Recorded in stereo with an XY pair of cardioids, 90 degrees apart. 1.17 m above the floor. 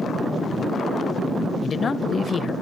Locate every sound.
1.6 s a man speaking: 50° left, 0.9 m